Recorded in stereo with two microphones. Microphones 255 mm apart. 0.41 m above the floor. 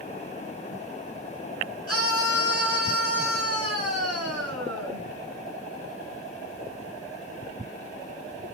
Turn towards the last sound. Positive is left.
turn(degrees=-65)  # may be behind; listen again after turning